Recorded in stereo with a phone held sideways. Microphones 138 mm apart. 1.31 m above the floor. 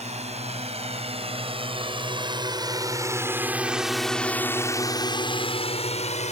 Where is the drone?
55° right (ahead or behind); by 6.3 s 60° left (ahead or behind).